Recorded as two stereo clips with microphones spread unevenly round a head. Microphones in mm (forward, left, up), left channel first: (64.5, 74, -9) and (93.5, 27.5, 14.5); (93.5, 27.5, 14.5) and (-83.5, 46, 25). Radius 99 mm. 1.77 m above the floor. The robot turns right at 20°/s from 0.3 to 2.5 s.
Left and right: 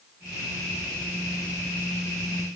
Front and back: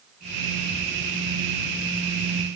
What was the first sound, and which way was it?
Only background noise.